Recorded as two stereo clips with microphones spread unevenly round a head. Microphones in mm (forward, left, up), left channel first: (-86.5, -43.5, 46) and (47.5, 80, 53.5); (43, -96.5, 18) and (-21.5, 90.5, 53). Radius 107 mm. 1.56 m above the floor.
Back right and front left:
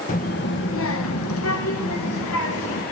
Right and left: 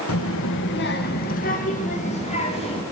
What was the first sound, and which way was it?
A child speaking, 85° right.